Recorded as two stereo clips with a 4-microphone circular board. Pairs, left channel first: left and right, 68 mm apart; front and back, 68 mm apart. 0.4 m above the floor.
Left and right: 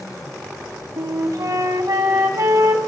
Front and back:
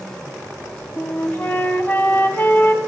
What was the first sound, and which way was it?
A flute, 60° right.